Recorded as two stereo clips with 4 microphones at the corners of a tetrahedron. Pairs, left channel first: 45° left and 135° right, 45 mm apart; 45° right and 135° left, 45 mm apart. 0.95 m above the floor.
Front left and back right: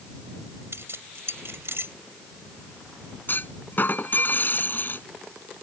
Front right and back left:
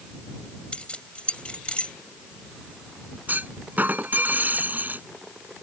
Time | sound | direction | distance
0.7 | keys jangling | 105° right | ?
3.3 | a clunk | 90° left | ?